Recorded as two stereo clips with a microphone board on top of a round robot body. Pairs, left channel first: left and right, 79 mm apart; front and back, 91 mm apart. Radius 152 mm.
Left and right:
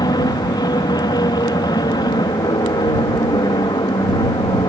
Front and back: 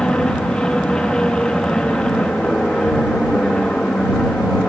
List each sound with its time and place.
0.0 s an aircraft: 80° left